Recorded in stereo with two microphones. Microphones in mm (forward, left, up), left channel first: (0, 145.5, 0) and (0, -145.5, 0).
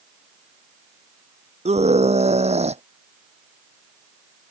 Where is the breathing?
I don't hear breathing.